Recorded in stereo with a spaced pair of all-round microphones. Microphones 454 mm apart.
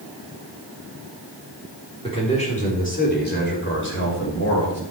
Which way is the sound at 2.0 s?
10° left (ahead or behind).